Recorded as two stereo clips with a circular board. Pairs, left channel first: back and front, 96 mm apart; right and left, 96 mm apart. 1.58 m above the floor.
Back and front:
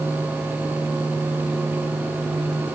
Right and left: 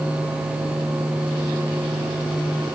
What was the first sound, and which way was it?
Only background noise.